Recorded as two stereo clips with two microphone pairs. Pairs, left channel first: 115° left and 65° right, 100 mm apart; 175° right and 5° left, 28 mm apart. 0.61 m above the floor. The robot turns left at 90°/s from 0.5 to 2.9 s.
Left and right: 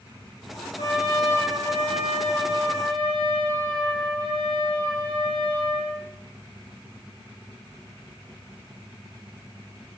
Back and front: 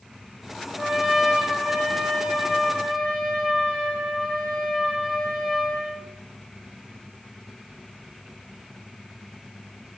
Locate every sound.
0.8 s a trumpet: 95° left, 1.6 m; by 6.1 s 95° right, 1.6 m